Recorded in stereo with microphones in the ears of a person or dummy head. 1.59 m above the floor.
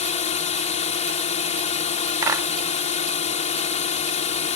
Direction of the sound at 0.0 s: 40° left (ahead or behind).